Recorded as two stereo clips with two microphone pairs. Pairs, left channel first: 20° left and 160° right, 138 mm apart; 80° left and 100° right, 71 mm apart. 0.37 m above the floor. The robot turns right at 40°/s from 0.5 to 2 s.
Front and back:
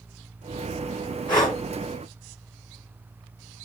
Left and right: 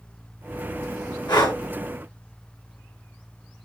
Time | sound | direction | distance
1.3 | breathing | 75° left | 2.5 m